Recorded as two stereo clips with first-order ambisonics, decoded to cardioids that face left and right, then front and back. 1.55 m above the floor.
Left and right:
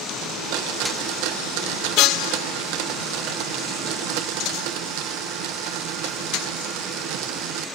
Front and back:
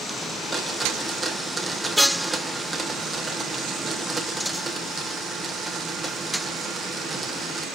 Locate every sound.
0.2 s a blender: 95° right, 1.4 m